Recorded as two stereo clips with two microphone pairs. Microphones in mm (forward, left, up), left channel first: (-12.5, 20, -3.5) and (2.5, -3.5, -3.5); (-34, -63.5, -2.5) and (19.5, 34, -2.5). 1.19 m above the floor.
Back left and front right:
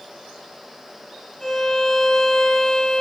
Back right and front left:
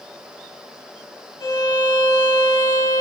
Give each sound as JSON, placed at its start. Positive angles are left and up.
{"t": 1.4, "sound": "a violin", "azimuth_deg": -160, "distance_m": 4.0}